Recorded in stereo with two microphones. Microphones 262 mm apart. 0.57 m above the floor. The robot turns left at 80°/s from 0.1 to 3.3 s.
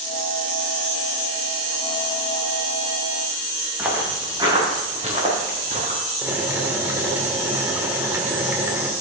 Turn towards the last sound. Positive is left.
turn(degrees=-10)  # may be behind; listen again after turning